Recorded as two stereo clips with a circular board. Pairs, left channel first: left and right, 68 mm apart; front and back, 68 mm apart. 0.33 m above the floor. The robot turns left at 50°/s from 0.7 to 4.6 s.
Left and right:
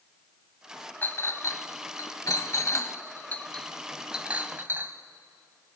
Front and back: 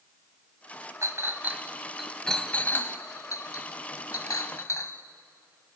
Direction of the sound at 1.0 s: 140° left.